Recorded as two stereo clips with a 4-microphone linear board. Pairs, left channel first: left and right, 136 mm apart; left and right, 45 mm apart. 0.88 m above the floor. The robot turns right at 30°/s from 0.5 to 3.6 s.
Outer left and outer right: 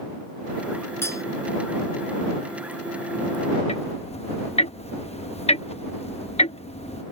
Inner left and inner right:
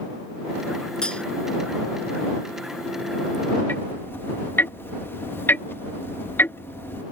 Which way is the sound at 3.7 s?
45° left (ahead or behind).